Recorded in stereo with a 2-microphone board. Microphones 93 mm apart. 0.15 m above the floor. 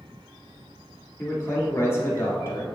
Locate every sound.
1.2 s a man speaking: 30° left (ahead or behind), 1.7 m